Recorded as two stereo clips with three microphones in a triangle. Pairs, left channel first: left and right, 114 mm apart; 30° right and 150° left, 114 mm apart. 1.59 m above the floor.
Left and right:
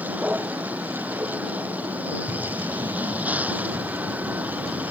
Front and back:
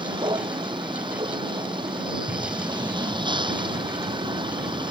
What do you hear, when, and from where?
0.0 s a vehicle: 165° right
2.3 s breathing: 150° right